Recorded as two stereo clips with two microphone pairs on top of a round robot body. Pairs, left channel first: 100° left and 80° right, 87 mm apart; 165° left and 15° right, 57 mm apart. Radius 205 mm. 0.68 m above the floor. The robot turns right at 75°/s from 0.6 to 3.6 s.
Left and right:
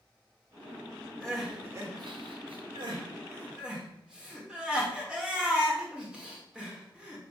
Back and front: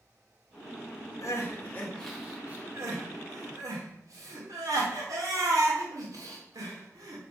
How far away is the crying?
About 2.5 m.